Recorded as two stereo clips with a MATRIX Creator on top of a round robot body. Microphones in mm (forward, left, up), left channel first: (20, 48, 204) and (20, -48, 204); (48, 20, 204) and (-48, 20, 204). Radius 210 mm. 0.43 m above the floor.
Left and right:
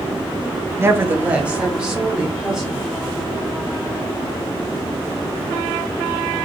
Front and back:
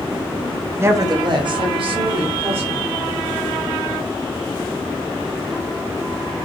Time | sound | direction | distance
0.8 | a woman speaking | 130° right | 0.8 m